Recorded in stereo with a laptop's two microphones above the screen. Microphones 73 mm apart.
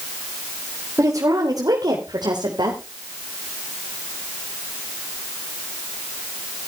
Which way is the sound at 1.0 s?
45° right (ahead or behind).